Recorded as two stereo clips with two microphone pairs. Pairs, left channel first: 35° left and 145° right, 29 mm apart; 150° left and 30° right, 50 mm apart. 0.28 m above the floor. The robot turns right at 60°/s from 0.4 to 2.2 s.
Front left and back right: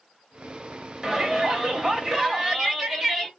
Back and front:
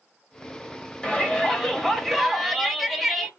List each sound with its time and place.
1.0 s a shout: straight behind, 0.9 m; by 3.3 s 110° right, 0.9 m